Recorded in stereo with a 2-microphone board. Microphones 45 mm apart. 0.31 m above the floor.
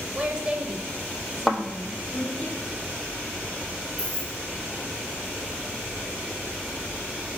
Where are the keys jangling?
40° right (ahead or behind), 3 m.